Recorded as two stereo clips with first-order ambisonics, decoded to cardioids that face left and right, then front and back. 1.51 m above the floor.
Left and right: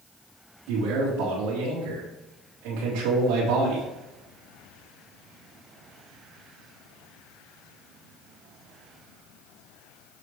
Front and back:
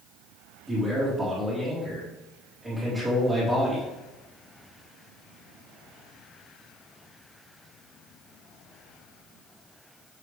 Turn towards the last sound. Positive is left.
turn(degrees=-95)